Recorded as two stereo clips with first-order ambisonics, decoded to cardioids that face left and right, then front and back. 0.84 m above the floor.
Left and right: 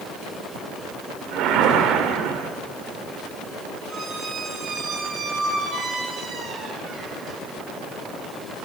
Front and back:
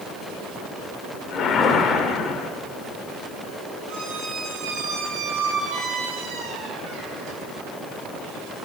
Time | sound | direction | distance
1.3 | a whoosh | 55° right | 1.4 m
3.9 | a squeak | 150° right | 4.5 m